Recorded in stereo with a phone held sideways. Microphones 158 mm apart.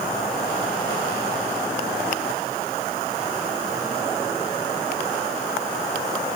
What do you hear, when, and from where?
Only background noise.